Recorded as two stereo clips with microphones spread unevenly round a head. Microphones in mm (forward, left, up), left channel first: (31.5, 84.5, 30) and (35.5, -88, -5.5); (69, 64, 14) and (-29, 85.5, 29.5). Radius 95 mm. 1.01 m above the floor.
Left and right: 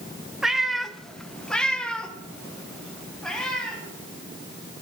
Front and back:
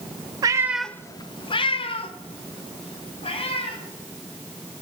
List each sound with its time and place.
0.4 s a cat meowing: 170° left, 0.6 m; by 3.8 s 10° left, 3 m